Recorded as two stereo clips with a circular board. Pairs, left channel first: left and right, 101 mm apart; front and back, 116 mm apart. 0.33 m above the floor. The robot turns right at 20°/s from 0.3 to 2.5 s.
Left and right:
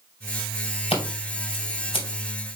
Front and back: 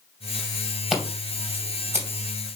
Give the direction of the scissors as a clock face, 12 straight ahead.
9 o'clock.